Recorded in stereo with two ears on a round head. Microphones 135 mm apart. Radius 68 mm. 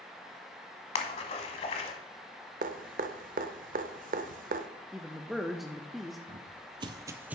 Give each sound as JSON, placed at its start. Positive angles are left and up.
{"t": 0.9, "sound": "a splash", "side_deg": 40, "distance_m": 1.0}
{"t": 2.6, "sound": "dripping", "side_deg": -55, "distance_m": 0.6}
{"t": 4.9, "sound": "a man speaking", "side_deg": 0, "distance_m": 0.5}
{"t": 6.3, "sound": "footsteps", "side_deg": -40, "distance_m": 0.9}